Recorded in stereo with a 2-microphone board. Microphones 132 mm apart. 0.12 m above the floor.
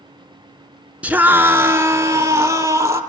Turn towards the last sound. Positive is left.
turn(degrees=-20)  # may be behind; listen again after turning